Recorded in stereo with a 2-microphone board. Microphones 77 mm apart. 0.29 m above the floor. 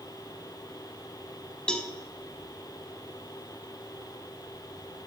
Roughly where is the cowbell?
Centre.